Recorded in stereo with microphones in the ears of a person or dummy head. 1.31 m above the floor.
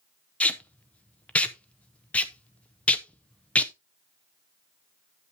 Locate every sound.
0.4 s tape being pulled: 10° left (ahead or behind), 0.7 m